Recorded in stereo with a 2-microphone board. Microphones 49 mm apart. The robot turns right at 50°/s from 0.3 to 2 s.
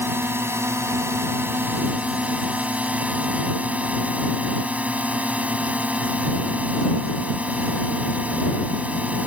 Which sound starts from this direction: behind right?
A drone, at 0.0 s.